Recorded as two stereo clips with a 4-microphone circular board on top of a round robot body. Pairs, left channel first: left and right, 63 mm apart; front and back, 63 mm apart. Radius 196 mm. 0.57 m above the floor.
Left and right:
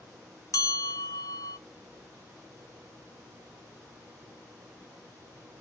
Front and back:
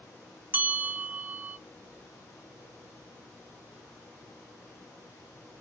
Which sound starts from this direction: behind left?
A bell, at 0.5 s.